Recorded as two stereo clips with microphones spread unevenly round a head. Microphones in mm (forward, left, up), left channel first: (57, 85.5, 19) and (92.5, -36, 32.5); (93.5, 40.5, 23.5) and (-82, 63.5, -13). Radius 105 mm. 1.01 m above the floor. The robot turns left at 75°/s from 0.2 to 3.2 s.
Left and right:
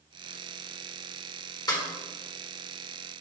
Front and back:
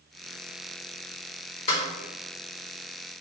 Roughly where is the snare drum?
Ahead left.